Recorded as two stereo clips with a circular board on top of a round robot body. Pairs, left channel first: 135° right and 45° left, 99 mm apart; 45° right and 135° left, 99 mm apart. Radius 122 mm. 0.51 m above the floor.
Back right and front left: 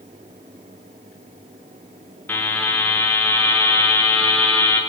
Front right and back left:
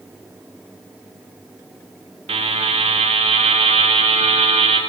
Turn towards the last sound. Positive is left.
turn(degrees=150)